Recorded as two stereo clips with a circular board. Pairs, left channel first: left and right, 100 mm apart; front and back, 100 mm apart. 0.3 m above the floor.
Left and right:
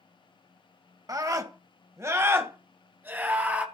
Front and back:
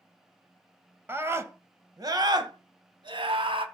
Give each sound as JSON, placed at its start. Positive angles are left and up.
{"t": 1.1, "sound": "a scream", "azimuth_deg": -120, "distance_m": 1.6}